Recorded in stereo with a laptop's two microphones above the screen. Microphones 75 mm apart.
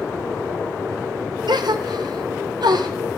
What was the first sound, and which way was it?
A gasp, 70° right (ahead or behind).